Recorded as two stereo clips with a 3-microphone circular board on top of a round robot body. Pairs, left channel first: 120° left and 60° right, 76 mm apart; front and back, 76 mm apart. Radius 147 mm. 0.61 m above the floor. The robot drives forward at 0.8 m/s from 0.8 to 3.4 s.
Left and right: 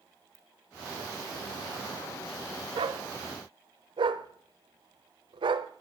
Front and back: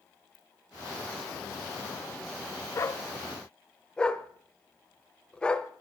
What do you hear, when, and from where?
0.3 s a ringtone: 5° right, 5 m
2.8 s a dog barking: 50° right, 1.1 m; by 5.7 s 80° right, 0.9 m